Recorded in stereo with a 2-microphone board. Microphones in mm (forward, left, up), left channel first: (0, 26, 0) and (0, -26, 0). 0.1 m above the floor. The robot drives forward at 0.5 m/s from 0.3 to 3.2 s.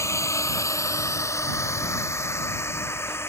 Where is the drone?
60° left (ahead or behind); by 3.3 s 45° left (ahead or behind).